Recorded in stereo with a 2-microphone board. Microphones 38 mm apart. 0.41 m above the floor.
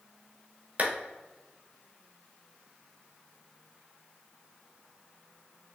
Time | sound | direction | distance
0.8 | a clap | 45° right (ahead or behind) | 0.9 m